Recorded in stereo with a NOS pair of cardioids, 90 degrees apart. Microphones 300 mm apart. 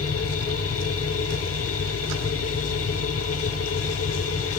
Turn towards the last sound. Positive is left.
turn(degrees=50)